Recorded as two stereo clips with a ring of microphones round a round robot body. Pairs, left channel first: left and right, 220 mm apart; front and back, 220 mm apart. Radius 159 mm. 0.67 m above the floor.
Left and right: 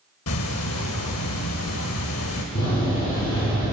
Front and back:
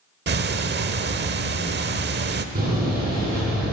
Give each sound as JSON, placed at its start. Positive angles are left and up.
{"t": 0.3, "sound": "ticking", "azimuth_deg": 135, "distance_m": 0.9}
{"t": 2.5, "sound": "a door slam", "azimuth_deg": 135, "distance_m": 6.0}